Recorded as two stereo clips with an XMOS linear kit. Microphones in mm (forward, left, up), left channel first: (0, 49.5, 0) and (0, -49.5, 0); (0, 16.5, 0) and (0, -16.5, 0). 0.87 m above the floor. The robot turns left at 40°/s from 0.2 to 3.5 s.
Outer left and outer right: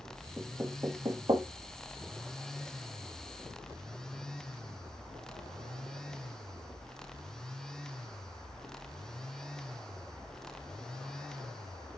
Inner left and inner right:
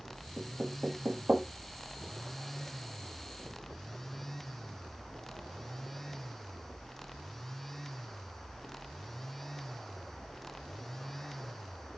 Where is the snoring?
No snoring in this recording.